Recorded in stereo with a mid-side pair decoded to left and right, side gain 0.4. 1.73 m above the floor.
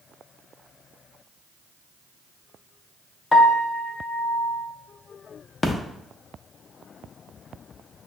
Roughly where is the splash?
Ahead left.